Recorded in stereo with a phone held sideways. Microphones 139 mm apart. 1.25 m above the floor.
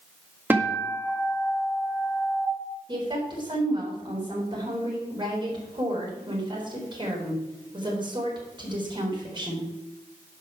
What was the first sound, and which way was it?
A guitar, 15° right (ahead or behind).